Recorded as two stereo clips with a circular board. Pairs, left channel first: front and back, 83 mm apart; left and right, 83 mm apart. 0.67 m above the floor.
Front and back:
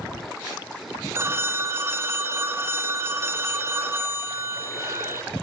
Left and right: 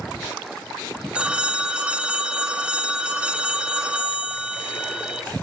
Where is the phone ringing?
155° right, 0.6 m.